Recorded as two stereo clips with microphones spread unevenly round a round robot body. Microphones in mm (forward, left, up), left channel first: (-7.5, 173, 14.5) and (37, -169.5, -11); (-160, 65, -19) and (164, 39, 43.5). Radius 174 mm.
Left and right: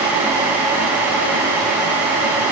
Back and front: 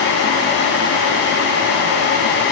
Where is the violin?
I don't hear a violin.